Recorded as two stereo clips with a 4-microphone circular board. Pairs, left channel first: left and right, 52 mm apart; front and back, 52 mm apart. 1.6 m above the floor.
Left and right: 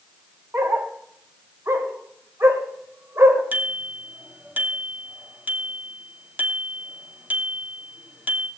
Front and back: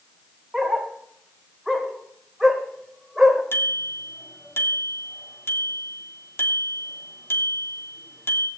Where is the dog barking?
95° right, 2.5 m.